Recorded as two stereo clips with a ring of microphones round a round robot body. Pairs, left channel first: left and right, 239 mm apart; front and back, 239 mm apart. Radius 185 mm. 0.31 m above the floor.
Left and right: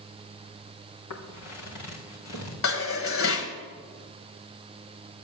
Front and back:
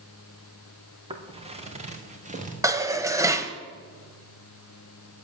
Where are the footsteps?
115° left, 3.5 m; by 2.5 s 120° left, 4 m.